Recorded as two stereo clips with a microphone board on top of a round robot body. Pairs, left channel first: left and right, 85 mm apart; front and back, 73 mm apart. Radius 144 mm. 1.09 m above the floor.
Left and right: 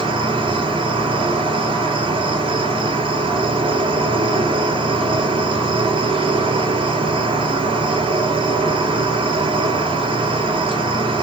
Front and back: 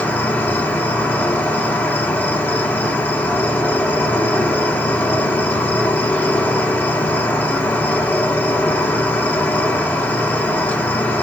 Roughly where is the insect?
Right.